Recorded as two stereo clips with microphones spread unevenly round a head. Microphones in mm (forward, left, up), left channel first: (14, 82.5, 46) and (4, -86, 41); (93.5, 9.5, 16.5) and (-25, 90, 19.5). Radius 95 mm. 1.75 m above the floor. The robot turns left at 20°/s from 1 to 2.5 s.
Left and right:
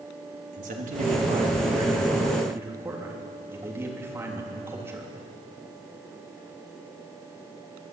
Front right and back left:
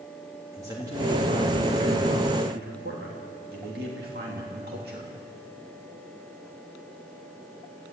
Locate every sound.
0.5 s a man speaking: 140° right, 3.5 m; by 5.1 s 170° right, 3.5 m